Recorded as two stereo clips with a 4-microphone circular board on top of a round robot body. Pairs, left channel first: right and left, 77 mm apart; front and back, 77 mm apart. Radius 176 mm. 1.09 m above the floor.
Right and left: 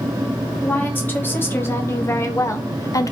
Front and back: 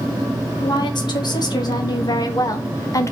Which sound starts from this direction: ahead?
A woman speaking, at 0.6 s.